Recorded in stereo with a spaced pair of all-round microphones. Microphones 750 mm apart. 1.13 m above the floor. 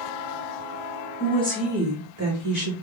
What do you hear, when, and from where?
1.2 s a woman speaking: 15° left (ahead or behind), 1.3 m; by 2.7 s 30° right (ahead or behind), 2 m